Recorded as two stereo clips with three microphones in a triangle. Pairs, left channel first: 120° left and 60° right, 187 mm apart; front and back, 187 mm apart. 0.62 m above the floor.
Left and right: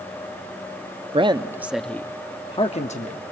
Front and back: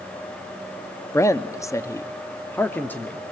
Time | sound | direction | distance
1.1 | a man speaking | 60° right | 0.6 m